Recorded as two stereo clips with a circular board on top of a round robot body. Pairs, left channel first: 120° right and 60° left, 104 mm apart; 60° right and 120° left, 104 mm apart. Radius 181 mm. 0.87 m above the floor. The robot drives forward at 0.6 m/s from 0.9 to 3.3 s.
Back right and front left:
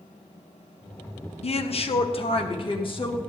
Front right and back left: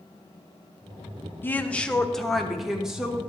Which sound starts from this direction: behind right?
A woman speaking, at 1.4 s.